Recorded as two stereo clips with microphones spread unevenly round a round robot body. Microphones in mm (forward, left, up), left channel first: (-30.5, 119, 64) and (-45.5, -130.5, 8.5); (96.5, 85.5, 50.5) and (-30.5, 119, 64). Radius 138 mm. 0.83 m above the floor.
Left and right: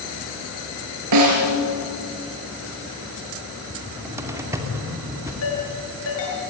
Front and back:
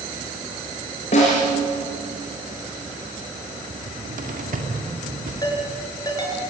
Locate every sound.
1.1 s a snare drum: 75° right, 4.5 m
3.7 s a cupboard door: 170° right, 2.5 m
5.4 s a ringtone: 50° left, 6 m